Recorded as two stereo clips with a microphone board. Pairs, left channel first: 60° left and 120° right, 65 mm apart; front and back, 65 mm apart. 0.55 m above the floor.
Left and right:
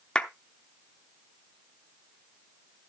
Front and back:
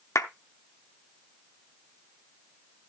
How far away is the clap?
About 0.8 m.